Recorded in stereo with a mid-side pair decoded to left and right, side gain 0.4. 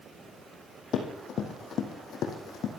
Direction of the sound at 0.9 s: 70° left.